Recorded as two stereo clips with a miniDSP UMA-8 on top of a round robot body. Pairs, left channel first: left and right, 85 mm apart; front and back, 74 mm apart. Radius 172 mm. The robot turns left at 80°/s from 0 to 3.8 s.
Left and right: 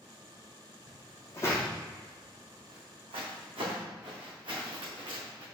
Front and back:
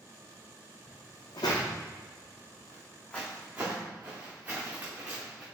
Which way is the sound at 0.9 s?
65° left.